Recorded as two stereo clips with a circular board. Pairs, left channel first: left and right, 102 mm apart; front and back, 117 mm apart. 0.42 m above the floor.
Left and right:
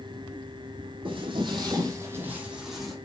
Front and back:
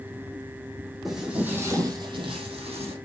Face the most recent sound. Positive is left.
turn(degrees=175)